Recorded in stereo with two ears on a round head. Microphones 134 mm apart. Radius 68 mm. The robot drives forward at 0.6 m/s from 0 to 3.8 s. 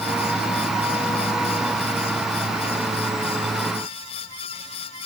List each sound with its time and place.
Only background noise.